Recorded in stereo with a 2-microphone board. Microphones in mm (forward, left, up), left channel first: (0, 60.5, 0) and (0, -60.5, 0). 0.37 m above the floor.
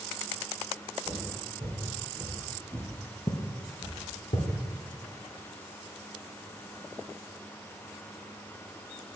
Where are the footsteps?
45° right (ahead or behind), 3 m; by 4.5 s 75° left (ahead or behind), 1.9 m.